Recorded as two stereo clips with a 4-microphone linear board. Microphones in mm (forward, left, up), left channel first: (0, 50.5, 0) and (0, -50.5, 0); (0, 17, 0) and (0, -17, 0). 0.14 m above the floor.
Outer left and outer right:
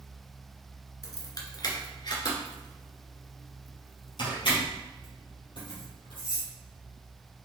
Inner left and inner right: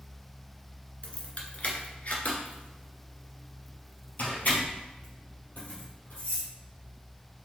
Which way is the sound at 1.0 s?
40° left (ahead or behind).